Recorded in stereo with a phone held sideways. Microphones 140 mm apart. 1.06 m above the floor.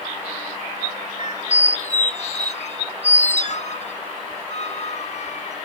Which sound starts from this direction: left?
A squeak, at 1.2 s.